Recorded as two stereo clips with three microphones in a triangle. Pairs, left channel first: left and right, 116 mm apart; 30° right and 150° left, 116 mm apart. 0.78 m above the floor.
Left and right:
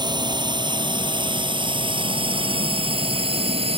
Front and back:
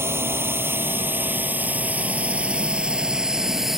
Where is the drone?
140° right; by 3.8 s 120° right.